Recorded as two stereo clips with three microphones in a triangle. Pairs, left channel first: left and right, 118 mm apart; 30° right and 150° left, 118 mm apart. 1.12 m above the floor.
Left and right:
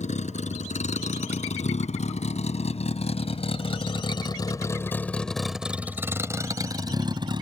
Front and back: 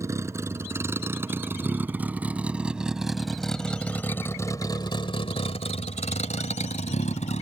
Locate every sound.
0.0 s a vehicle: 85° left; by 7.4 s 45° right